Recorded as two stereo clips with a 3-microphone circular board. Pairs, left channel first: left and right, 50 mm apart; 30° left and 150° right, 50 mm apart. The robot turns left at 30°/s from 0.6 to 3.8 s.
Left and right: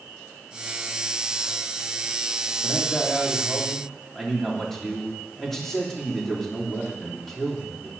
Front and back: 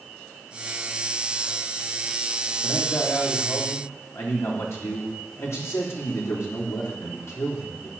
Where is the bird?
No bird in this recording.